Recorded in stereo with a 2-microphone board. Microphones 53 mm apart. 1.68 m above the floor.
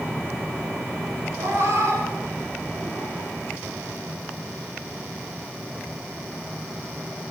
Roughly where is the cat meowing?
Right.